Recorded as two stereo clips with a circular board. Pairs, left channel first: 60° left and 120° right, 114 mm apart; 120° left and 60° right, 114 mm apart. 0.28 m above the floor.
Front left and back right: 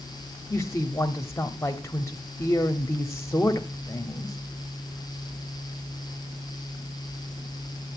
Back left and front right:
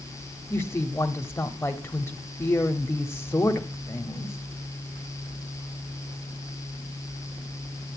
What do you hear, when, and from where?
0.5 s a woman speaking: 80° left, 1.0 m